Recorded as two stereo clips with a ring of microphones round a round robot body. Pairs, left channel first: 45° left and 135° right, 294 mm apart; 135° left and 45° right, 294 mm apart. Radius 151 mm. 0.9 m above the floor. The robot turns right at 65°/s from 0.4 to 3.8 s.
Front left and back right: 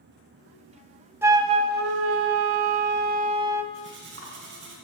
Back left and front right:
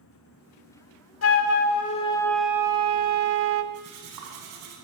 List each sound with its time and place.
1.2 s a flute: 145° left, 0.9 m; by 3.6 s 55° right, 0.9 m
3.7 s cutlery clinking: 85° right, 5 m; by 4.7 s 80° right, 5 m